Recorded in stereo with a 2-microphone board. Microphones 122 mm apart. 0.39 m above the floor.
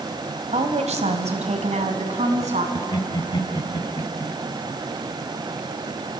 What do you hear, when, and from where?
0.5 s a woman speaking: 65° right (ahead or behind), 2 m; by 2.6 s 70° right (ahead or behind), 3 m
2.8 s laughter: 40° left (ahead or behind), 1.9 m